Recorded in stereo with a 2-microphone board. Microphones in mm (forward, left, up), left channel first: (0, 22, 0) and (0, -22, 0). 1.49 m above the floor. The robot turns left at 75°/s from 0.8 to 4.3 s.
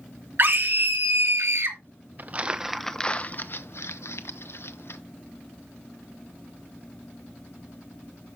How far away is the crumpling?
About 0.7 m.